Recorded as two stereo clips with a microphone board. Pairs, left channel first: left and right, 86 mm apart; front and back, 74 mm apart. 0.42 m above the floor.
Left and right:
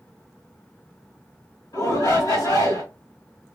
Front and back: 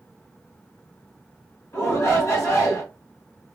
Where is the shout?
50° left, 2.5 m.